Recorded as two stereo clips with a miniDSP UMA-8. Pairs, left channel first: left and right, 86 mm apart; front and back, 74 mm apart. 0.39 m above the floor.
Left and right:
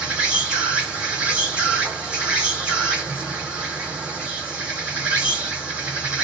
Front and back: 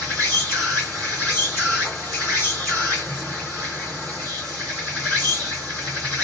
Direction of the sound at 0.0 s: 30° right.